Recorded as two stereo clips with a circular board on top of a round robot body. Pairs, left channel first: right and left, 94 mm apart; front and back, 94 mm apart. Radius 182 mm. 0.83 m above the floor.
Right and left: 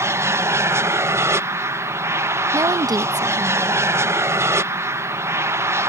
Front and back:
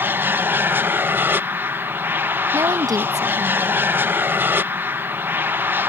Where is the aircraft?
125° left.